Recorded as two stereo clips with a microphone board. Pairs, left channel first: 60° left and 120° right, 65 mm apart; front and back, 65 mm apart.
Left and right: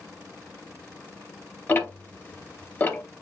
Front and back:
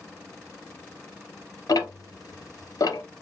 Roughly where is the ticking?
Ahead.